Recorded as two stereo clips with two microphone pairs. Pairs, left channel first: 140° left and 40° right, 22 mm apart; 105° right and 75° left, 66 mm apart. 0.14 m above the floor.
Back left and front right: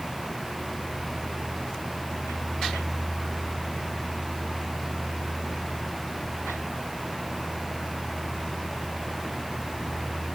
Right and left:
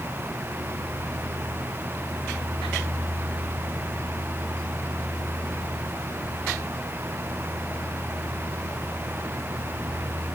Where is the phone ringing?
I don't hear a phone ringing.